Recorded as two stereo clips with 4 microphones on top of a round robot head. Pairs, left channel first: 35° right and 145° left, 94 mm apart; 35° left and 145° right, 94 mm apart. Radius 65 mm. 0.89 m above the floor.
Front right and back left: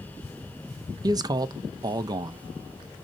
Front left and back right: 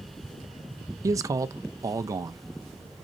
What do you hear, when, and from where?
1.0 s a man speaking: 175° left, 0.6 m